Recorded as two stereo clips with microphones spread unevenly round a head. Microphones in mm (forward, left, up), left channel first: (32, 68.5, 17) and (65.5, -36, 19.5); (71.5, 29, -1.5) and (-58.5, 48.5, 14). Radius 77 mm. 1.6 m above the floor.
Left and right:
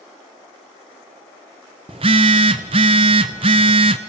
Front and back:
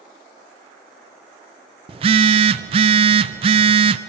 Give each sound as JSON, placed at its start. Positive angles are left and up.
{"t": 1.9, "sound": "a phone buzzing", "azimuth_deg": -130, "distance_m": 0.6}